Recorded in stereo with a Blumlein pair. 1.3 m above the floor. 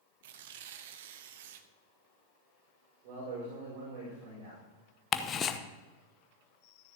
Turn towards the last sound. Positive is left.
turn(degrees=25)